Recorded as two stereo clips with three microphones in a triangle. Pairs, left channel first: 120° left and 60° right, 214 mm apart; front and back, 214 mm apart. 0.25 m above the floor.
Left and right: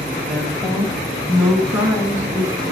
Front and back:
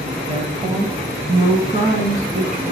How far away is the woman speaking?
About 1.2 m.